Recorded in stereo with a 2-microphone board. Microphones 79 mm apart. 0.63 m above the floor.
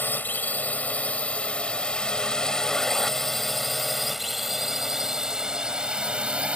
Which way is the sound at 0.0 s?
25° left (ahead or behind).